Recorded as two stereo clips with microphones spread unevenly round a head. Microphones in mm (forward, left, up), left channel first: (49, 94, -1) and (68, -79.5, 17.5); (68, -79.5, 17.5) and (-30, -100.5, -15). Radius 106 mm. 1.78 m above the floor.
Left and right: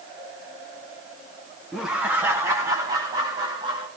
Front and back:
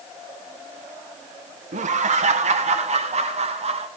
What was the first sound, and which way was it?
Laughter, 170° right.